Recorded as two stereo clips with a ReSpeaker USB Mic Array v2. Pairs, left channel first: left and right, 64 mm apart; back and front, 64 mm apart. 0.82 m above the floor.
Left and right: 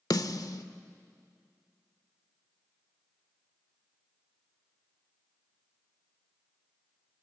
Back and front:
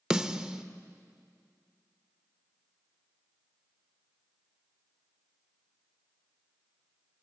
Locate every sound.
0.1 s a snare drum: 80° left, 0.8 m